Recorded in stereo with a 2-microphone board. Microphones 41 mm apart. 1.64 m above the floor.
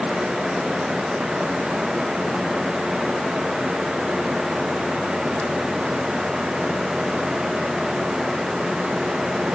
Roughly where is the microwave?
No microwave in this recording.